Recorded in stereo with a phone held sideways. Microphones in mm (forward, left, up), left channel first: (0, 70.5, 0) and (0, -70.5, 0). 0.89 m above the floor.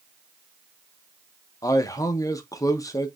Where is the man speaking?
25° left (ahead or behind), 0.5 m.